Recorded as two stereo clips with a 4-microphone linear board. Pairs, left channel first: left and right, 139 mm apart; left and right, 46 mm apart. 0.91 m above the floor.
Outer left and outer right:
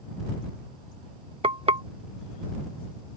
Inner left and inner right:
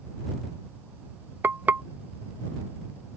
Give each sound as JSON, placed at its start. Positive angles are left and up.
{"t": 1.4, "sound": "frying", "side_deg": -45}